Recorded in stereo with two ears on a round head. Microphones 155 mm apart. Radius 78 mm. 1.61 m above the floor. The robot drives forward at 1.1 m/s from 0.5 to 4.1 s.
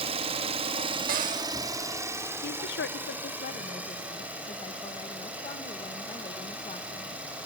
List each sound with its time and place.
0.0 s an engine running: 35° right (ahead or behind), 1.1 m; by 7.5 s 10° right (ahead or behind), 4 m
1.1 s a cupboard door: 55° right (ahead or behind), 0.7 m; by 1.5 s 40° right (ahead or behind), 0.9 m
2.4 s a woman speaking: 55° left (ahead or behind), 1.0 m; by 7.2 s 30° left (ahead or behind), 1.6 m